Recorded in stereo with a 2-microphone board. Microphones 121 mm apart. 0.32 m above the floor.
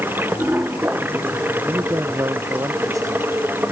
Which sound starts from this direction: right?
A man speaking, at 1.7 s.